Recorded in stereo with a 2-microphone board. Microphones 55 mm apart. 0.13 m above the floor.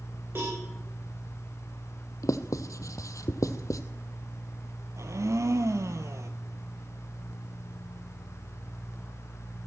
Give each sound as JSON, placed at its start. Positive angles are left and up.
{"t": 0.3, "sound": "a cowbell", "side_deg": -45, "distance_m": 6.5}
{"t": 2.2, "sound": "writing", "side_deg": 80, "distance_m": 0.8}
{"t": 5.0, "sound": "a blender", "side_deg": -65, "distance_m": 1.0}